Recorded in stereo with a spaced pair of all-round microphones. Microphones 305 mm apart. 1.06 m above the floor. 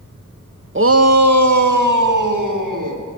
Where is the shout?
40° right (ahead or behind), 0.7 m; by 3.0 s 80° right, 3 m.